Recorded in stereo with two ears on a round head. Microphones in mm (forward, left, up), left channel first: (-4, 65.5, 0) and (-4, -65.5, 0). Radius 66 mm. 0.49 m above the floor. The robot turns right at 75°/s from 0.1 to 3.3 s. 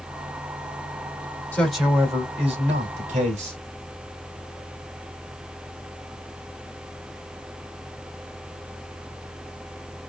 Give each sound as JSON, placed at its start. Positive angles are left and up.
{"t": 1.5, "sound": "a man speaking", "azimuth_deg": 165, "distance_m": 2.0}